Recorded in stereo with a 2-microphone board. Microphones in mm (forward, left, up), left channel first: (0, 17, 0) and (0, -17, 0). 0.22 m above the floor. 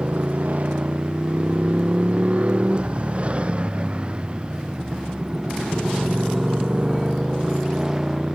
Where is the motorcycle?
45° right (ahead or behind); by 8.3 s 15° right (ahead or behind).